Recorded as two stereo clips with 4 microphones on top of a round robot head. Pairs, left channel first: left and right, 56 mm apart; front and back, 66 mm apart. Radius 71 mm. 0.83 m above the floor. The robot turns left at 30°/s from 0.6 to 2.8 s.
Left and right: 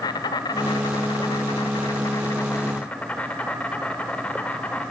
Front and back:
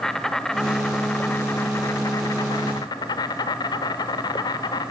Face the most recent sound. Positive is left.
turn(degrees=15)